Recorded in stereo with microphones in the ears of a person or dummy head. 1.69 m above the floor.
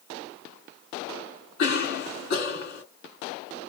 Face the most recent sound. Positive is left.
turn(degrees=45)  # may be behind; listen again after turning